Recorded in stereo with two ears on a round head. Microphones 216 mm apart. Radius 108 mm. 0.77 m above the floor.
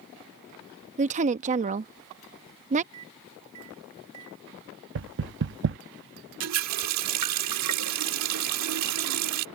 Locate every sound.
1.0 s a woman speaking: 30° right (ahead or behind)
2.9 s a microwave: 65° right (ahead or behind)
5.0 s knocking: 50° right (ahead or behind)
6.4 s a running tap: 75° right (ahead or behind)